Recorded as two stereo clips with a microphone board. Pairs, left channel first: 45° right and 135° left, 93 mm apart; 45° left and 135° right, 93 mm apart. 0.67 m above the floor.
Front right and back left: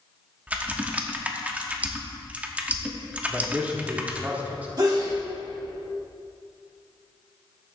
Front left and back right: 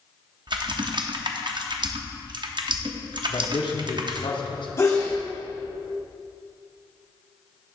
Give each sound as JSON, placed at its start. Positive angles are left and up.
{"t": 0.5, "sound": "typing on a keyboard", "azimuth_deg": -155, "distance_m": 0.7}
{"t": 3.3, "sound": "a man speaking", "azimuth_deg": 65, "distance_m": 1.1}
{"t": 4.8, "sound": "a sneeze", "azimuth_deg": 100, "distance_m": 1.8}